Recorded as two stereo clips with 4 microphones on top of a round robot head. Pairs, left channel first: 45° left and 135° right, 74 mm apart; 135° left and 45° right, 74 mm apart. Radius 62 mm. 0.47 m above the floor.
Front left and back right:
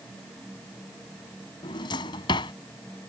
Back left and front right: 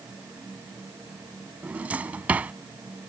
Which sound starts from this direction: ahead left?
A drawer, at 1.6 s.